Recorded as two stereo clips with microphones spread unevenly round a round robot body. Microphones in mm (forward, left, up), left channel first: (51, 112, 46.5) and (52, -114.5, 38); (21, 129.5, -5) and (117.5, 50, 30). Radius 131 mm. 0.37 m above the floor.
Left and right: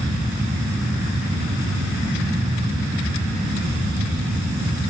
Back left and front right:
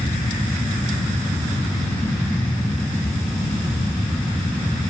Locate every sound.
Only background noise.